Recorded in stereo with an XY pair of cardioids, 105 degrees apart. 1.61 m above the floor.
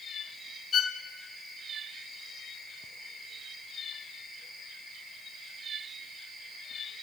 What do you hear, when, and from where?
0.7 s a violin: 50° left, 1.3 m